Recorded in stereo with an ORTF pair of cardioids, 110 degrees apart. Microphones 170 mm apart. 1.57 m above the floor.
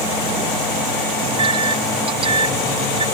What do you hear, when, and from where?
1.2 s a microwave: 30° right